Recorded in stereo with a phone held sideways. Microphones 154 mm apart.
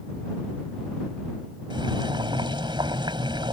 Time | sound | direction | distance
1.7 | boiling | 30° right (ahead or behind) | ?